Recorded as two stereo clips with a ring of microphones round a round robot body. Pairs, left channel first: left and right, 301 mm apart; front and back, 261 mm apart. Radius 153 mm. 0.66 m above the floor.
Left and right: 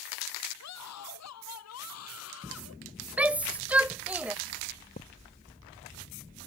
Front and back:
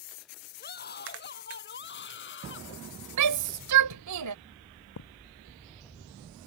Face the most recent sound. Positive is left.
turn(degrees=25)